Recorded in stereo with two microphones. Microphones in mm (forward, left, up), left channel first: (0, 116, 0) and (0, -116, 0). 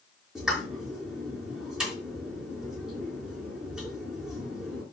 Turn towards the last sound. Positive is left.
turn(degrees=-5)  # may be behind; listen again after turning